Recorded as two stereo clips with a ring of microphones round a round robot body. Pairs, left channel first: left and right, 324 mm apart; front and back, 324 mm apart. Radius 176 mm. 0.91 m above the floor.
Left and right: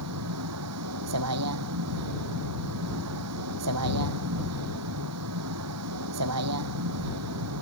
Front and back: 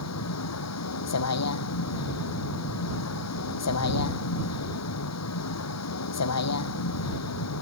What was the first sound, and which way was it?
A vehicle, 40° right.